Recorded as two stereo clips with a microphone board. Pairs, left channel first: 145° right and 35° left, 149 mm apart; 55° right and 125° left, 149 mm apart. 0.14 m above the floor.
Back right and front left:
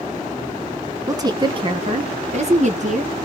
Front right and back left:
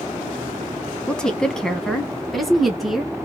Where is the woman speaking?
15° left, 1.1 m; by 3.1 s 35° left, 1.8 m.